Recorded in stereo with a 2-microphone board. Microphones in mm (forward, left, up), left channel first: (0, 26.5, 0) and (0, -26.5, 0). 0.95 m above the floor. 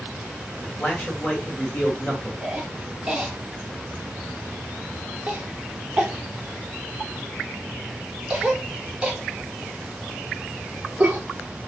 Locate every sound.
0.6 s a man speaking: 30° left (ahead or behind), 1.4 m
2.4 s a cough: 15° right (ahead or behind), 0.7 m